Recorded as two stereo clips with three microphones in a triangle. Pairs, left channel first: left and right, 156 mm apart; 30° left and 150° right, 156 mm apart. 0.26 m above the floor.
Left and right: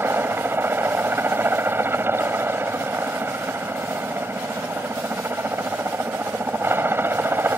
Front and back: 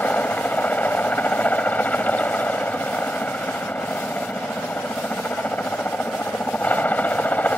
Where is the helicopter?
35° right.